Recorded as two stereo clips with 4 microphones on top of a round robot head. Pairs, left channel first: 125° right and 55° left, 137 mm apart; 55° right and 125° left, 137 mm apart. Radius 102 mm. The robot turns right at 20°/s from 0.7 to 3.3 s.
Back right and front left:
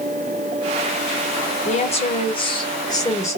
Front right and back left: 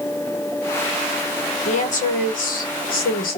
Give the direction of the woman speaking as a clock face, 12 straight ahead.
3 o'clock.